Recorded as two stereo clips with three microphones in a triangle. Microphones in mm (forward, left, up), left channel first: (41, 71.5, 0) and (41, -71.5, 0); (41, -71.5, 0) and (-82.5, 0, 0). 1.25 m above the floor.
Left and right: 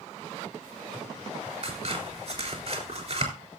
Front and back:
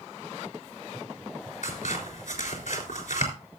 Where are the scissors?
55° right, 3.5 m.